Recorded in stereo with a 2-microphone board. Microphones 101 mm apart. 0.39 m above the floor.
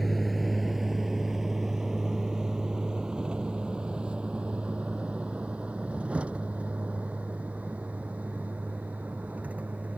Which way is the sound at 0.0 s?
Centre (ahead or behind).